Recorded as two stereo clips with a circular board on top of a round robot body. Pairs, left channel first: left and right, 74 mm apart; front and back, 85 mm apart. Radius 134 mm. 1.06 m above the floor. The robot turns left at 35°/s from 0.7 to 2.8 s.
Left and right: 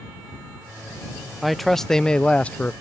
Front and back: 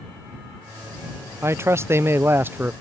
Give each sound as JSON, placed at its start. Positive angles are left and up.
{"t": 1.4, "sound": "a man speaking", "azimuth_deg": -175}